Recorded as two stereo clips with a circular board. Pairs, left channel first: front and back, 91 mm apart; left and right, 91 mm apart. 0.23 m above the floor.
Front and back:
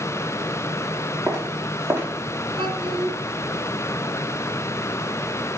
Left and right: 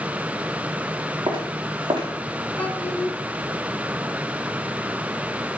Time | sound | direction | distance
1.3 | footsteps | 125° right | 5.5 m
2.6 | a child speaking | 160° left | 2 m